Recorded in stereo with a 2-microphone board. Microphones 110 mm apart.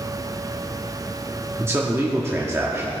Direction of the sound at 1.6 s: 25° right (ahead or behind).